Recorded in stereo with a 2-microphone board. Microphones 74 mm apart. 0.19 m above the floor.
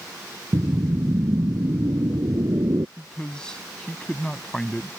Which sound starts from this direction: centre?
A man speaking, at 3.0 s.